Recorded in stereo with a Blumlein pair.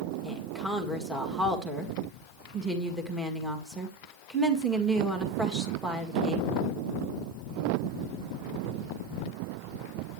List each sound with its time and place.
0.2 s a woman speaking: 10° right, 1.9 m